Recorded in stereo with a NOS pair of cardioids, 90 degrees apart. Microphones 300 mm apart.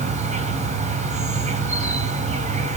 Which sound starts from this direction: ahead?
An insect, at 0.0 s.